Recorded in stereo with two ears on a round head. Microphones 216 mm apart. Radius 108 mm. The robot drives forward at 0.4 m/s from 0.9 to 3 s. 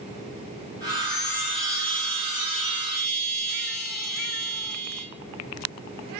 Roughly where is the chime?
Left.